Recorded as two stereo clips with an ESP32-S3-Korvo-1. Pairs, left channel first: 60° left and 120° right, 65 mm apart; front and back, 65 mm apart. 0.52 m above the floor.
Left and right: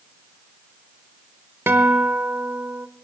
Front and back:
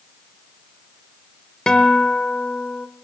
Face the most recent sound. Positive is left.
turn(degrees=-75)